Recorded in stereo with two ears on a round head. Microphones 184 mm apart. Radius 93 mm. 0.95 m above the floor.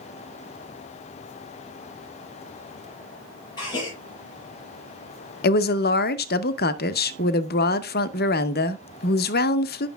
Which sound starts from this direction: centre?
A gasp, at 3.6 s.